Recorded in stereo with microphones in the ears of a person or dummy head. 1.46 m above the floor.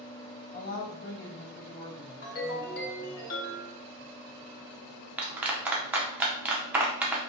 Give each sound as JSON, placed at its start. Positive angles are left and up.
{"t": 0.5, "sound": "a woman speaking", "side_deg": 50, "distance_m": 1.5}
{"t": 2.2, "sound": "a ringtone", "side_deg": 45, "distance_m": 1.5}
{"t": 5.2, "sound": "a clap", "side_deg": -10, "distance_m": 0.5}